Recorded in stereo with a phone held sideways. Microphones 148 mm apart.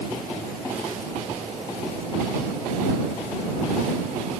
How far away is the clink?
No clink in this recording.